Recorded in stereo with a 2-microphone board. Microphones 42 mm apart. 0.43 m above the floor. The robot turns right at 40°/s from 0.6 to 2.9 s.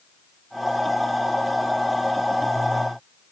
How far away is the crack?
No crack in this recording.